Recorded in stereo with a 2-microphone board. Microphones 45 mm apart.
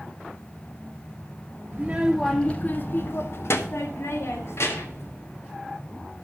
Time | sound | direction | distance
1.7 | a child speaking | 25° right (ahead or behind) | 0.6 m